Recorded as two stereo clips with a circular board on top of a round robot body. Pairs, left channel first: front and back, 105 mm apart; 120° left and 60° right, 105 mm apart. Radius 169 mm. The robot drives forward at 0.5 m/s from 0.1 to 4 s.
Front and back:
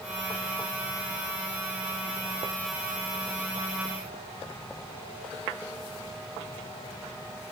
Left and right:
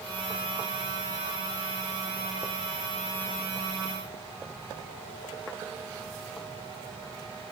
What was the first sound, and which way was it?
Only background noise.